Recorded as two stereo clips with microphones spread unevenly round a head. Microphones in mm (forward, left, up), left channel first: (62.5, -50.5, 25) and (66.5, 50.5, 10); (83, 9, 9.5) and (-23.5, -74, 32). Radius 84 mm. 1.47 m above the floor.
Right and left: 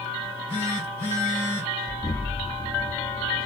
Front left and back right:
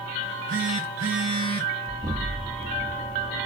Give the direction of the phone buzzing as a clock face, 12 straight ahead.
5 o'clock.